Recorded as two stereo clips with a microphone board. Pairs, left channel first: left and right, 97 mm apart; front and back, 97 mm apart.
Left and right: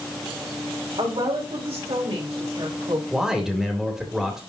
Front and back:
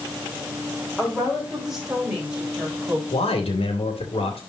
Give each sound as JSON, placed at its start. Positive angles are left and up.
{"t": 1.0, "sound": "a woman speaking", "azimuth_deg": -90, "distance_m": 4.0}
{"t": 3.1, "sound": "a man speaking", "azimuth_deg": -5, "distance_m": 2.5}